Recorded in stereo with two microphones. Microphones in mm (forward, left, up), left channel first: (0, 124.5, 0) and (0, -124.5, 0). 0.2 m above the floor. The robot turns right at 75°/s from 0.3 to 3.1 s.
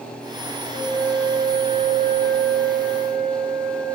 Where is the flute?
135° left, 1.0 m; by 3.9 s 45° right, 1.0 m.